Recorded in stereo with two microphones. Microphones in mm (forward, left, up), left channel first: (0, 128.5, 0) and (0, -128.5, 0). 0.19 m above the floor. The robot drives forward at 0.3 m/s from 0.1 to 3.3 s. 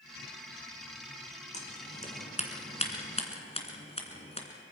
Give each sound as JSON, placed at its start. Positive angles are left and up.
{"t": 1.5, "sound": "scissors", "side_deg": 25, "distance_m": 2.0}